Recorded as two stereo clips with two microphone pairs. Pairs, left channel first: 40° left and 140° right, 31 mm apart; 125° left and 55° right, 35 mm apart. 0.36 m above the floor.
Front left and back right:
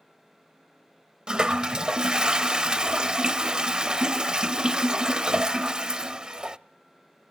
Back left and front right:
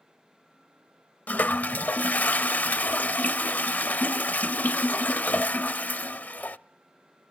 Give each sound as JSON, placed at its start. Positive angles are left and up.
{"t": 1.3, "sound": "a toilet flushing", "azimuth_deg": 155, "distance_m": 0.6}